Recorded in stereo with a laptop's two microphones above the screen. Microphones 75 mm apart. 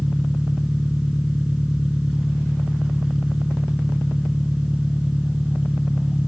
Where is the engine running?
10° right (ahead or behind).